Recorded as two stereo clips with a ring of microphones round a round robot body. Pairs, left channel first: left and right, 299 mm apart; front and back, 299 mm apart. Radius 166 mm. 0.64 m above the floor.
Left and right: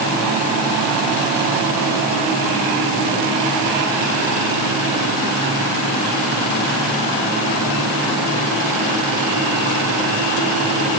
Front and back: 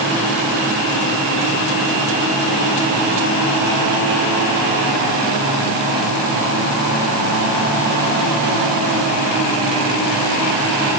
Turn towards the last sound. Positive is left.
No sound to turn to.